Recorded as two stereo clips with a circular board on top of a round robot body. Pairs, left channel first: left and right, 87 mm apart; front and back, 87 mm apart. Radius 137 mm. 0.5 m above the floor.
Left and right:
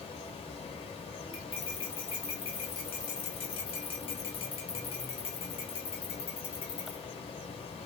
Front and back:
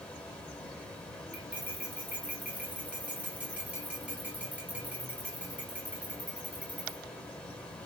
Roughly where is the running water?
Left.